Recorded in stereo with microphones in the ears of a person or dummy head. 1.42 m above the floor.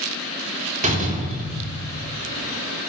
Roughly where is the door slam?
Right.